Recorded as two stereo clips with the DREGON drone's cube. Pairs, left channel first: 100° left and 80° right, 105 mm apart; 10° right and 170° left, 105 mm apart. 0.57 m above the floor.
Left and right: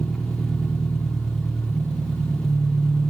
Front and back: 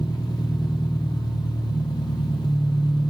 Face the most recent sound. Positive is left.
turn(degrees=10)